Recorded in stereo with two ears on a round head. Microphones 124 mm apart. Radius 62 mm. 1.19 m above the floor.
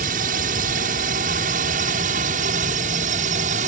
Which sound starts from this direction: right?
A drone, at 0.0 s.